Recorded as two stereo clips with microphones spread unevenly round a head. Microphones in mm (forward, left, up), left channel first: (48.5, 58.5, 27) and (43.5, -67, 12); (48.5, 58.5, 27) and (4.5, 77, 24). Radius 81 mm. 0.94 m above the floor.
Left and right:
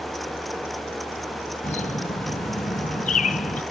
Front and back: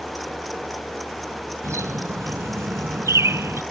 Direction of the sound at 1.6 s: 140° left.